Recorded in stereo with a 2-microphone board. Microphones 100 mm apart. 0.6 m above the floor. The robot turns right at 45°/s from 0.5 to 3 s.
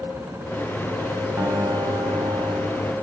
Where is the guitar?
145° right, 3 m; by 2.9 s 75° right, 3 m.